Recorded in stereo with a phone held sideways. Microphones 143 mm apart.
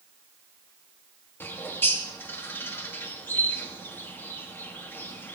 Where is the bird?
15° left (ahead or behind), 1.0 m.